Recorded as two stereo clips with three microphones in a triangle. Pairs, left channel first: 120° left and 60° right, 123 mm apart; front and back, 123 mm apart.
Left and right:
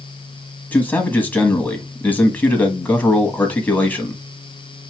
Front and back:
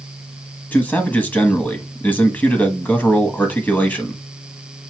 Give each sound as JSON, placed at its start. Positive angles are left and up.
{"t": 0.7, "sound": "a man speaking", "azimuth_deg": 60, "distance_m": 1.1}